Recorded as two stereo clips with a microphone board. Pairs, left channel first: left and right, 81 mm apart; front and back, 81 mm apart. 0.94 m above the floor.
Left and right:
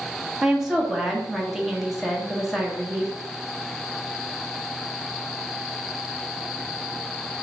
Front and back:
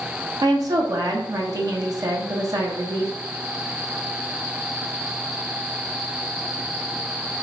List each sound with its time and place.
0.4 s a woman speaking: 175° right, 1.0 m